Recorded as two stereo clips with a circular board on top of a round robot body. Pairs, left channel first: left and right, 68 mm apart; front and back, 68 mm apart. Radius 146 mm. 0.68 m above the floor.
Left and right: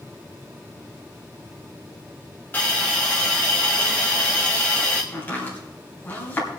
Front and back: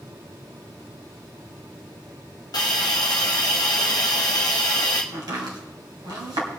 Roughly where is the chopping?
Behind left.